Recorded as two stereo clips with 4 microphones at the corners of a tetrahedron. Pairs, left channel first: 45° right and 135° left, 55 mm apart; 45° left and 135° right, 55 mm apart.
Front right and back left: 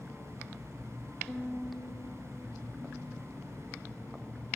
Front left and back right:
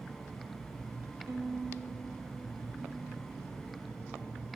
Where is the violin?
130° right, 0.6 m.